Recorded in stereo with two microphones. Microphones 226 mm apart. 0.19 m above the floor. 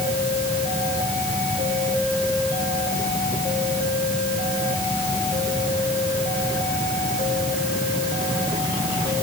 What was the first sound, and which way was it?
Only background noise.